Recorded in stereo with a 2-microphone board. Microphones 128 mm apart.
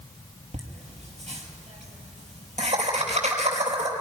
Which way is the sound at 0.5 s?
70° right (ahead or behind).